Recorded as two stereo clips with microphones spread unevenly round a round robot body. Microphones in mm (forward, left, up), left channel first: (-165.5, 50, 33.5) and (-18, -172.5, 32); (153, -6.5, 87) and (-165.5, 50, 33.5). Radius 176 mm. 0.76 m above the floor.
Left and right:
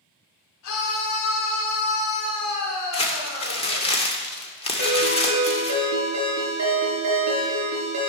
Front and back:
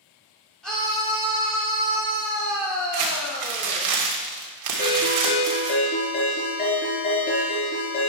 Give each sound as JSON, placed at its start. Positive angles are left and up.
{"t": 0.6, "sound": "a scream", "azimuth_deg": 80, "distance_m": 2.0}
{"t": 2.9, "sound": "crumpling", "azimuth_deg": -170, "distance_m": 2.5}
{"t": 4.8, "sound": "a ringtone", "azimuth_deg": -75, "distance_m": 5.0}